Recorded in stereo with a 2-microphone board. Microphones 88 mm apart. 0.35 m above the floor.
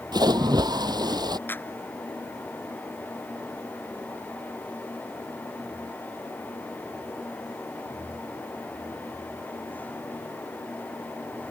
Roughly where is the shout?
I don't hear a shout.